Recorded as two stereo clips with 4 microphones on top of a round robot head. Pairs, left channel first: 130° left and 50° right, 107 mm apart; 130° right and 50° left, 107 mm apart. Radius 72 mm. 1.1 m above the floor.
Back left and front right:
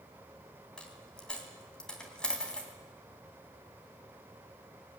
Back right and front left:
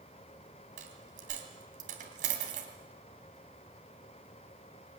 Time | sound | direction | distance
0.8 | a dropped coin | 45° left | 3 m